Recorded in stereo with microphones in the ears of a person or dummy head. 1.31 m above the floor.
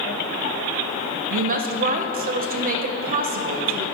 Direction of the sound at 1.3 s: 40° right (ahead or behind).